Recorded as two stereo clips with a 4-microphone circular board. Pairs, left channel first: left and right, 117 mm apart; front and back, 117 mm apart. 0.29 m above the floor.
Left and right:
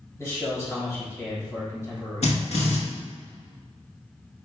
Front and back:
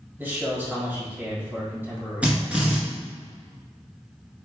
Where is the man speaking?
125° left, 1.5 m.